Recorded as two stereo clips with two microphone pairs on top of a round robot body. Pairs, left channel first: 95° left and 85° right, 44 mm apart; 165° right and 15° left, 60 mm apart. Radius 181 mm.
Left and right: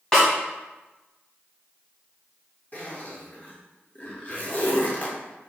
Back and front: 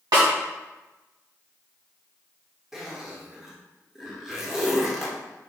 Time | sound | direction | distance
0.1 | a snare drum | 20° left | 1.6 m
2.7 | a zipper | 100° left | 1.5 m